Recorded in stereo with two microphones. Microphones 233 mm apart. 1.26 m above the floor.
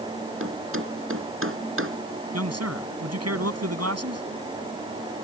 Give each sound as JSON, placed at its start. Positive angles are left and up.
{"t": 0.4, "sound": "a thud", "side_deg": -60}
{"t": 2.3, "sound": "a man speaking", "side_deg": -80}